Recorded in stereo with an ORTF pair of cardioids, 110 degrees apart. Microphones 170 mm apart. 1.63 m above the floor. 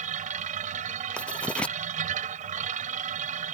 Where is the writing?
5° left.